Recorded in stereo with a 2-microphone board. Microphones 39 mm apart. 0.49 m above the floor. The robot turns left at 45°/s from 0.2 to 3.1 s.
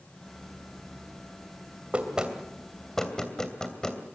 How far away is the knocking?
About 2.5 m.